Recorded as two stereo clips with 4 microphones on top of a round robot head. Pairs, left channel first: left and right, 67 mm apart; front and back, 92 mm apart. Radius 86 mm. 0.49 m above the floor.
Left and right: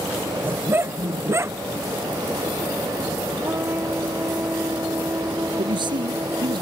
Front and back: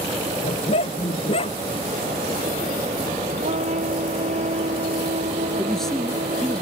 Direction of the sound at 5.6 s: 85° right.